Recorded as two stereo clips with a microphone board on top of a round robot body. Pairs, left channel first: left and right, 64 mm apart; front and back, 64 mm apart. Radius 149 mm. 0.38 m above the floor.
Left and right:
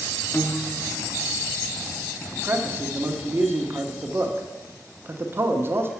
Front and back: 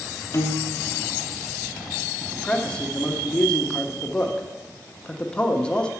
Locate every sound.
0.3 s a piano: 30° left, 0.8 m
2.3 s a man speaking: 65° right, 1.1 m